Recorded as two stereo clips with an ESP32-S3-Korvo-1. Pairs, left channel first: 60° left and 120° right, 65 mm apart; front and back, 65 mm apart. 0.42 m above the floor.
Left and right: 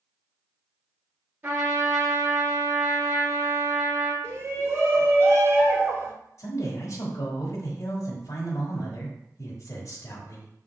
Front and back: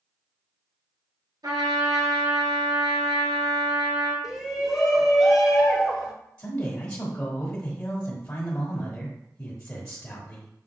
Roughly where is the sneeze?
No sneeze in this recording.